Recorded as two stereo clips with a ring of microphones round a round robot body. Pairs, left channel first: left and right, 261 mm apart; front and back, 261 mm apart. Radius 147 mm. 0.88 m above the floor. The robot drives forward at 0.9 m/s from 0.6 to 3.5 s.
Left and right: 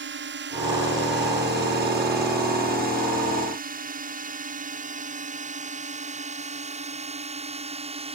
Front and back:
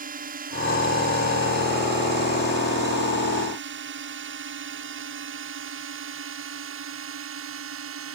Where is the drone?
125° right; by 8.2 s 155° right.